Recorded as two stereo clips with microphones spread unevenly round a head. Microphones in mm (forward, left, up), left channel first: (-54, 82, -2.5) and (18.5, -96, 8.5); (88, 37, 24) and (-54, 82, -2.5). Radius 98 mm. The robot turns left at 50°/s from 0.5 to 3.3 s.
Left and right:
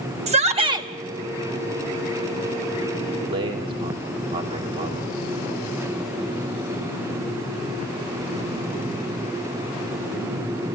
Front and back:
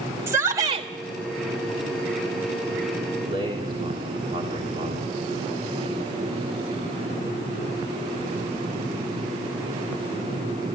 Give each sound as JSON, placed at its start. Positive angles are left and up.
{"t": 0.3, "sound": "a shout", "azimuth_deg": -125, "distance_m": 1.7}
{"t": 3.2, "sound": "a man speaking", "azimuth_deg": -125, "distance_m": 3.0}